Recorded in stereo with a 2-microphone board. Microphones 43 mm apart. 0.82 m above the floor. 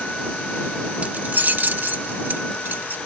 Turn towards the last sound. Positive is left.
turn(degrees=-55)  # may be behind; listen again after turning